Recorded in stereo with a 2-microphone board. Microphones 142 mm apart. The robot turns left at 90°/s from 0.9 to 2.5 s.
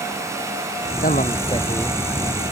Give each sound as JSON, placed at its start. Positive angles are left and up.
{"t": 1.0, "sound": "a man speaking", "azimuth_deg": 85}